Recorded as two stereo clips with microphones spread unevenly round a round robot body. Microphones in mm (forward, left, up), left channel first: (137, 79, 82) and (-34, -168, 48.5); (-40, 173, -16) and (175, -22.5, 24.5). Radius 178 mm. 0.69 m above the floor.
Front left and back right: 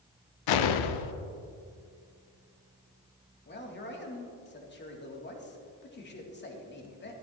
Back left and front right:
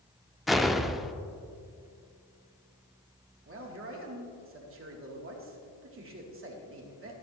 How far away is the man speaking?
About 2 m.